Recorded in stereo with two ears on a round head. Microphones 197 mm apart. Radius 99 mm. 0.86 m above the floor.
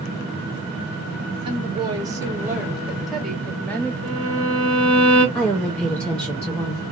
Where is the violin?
65° left (ahead or behind), 1.8 m.